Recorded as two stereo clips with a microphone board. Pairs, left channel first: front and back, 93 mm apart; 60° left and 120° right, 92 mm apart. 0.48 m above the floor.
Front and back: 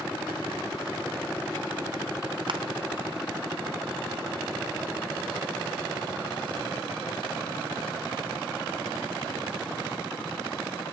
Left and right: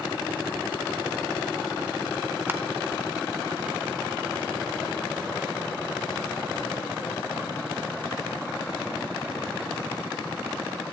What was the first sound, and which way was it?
Crushing, 175° left.